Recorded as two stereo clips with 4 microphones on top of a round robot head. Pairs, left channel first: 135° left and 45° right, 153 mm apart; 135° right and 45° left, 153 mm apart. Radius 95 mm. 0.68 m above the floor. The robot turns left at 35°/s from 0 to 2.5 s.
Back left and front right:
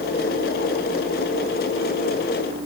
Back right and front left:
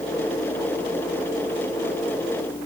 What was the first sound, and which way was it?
Only background noise.